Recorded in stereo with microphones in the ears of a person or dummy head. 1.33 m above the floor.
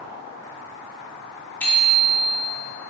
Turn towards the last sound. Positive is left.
turn(degrees=10)  # may be behind; listen again after turning